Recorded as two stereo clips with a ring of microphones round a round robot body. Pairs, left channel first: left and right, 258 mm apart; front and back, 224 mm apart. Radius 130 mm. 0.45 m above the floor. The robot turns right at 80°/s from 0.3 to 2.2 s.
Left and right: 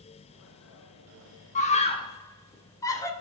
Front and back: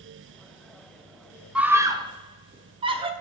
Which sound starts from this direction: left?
A scream, at 1.6 s.